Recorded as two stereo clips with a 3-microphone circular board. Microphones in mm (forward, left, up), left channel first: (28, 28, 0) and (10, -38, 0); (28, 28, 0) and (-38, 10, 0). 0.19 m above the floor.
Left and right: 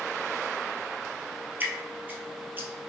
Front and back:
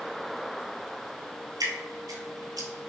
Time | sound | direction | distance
1.6 | dripping | 165° right | 1.2 m